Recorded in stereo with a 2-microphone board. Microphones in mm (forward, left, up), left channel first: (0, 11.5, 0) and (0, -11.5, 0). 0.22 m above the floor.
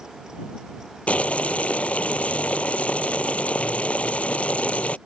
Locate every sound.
1.1 s boiling: 85° left